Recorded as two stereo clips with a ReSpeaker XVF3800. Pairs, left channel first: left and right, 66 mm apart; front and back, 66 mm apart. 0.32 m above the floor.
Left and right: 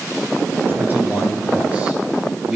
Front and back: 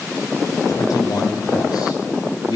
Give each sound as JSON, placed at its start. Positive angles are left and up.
{"t": 0.7, "sound": "a man speaking", "azimuth_deg": -30, "distance_m": 5.0}